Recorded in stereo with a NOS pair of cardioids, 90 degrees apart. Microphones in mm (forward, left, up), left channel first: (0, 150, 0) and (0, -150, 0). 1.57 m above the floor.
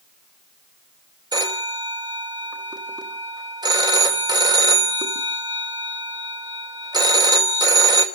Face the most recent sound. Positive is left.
turn(degrees=-15)